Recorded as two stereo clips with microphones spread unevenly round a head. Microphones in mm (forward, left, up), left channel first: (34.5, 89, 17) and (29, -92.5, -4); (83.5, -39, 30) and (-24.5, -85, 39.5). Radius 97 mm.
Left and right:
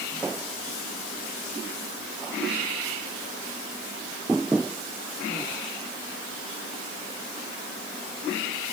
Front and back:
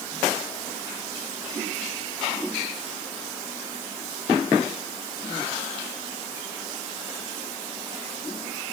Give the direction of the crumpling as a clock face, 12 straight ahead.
No crumpling in this recording.